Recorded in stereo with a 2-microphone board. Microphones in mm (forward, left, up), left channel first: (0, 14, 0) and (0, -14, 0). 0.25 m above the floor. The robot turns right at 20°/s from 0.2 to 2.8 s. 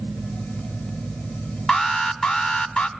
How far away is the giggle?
No giggle in this recording.